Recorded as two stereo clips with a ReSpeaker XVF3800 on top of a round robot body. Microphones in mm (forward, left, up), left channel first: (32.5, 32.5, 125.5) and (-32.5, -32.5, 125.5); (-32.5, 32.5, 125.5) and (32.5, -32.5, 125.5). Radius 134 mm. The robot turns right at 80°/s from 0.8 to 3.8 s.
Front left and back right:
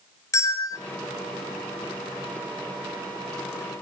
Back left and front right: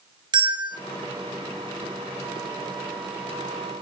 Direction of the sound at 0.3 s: 10° right.